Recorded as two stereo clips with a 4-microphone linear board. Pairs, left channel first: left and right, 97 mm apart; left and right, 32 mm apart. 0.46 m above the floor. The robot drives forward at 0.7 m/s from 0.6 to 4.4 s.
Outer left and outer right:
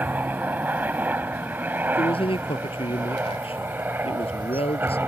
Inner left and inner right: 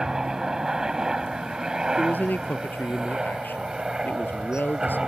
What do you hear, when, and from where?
0.0 s a helicopter: 20° right (ahead or behind)
1.9 s a man speaking: 70° left (ahead or behind); by 5.0 s 80° left